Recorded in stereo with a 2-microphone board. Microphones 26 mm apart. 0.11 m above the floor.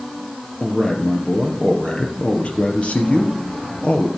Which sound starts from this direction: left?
A man speaking, at 0.6 s.